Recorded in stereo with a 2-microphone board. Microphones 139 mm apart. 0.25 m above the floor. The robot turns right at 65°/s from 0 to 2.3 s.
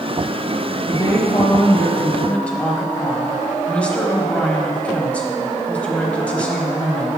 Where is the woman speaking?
25° left (ahead or behind), 1.1 m; by 7.1 s 10° left (ahead or behind), 1.1 m.